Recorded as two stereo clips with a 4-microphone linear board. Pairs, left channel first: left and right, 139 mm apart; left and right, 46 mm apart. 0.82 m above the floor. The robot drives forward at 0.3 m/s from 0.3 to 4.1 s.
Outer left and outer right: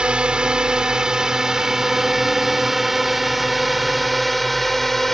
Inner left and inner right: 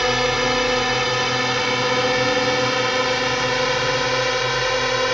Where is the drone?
5° right (ahead or behind); by 5.1 s centre (ahead or behind).